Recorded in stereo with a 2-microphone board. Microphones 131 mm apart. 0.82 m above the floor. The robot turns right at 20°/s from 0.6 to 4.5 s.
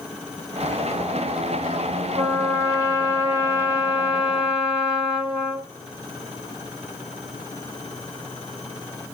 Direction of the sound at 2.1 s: 50° right.